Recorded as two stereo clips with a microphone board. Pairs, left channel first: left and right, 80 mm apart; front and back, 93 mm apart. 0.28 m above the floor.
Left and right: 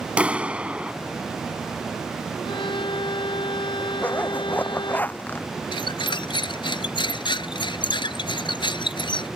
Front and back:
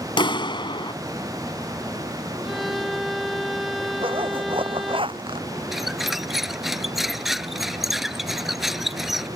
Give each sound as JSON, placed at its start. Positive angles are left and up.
{"t": 0.2, "sound": "a clap", "azimuth_deg": -15}
{"t": 2.4, "sound": "a violin", "azimuth_deg": 90}
{"t": 4.0, "sound": "a zipper", "azimuth_deg": 160}
{"t": 5.7, "sound": "a squeak", "azimuth_deg": 90}